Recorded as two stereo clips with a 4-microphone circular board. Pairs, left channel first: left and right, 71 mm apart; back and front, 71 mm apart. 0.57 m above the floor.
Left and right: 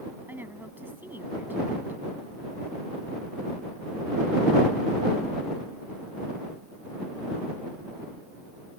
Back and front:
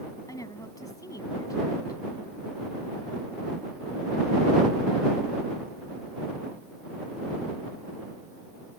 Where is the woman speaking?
150° right.